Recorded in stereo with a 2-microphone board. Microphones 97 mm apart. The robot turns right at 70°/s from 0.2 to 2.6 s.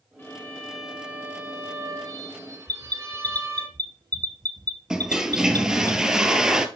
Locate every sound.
0.2 s a violin: 135° left, 1.8 m; by 3.7 s 55° right, 1.8 m
2.7 s an alarm: 45° right (ahead or behind), 1.1 m
4.9 s a toilet flushing: 5° right (ahead or behind), 0.8 m